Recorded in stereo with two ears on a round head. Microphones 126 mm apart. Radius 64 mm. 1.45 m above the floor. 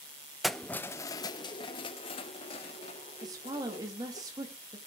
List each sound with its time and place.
0.4 s keys jangling: centre (ahead or behind), 0.6 m; by 4.2 s 50° left (ahead or behind), 2.5 m
3.2 s a woman speaking: 25° right (ahead or behind), 2.5 m